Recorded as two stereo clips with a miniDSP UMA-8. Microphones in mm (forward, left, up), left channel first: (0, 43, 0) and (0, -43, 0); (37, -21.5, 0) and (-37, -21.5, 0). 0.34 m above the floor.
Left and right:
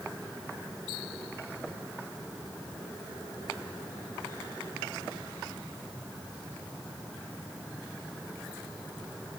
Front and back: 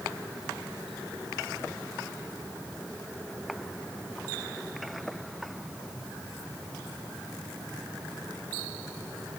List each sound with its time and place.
Only background noise.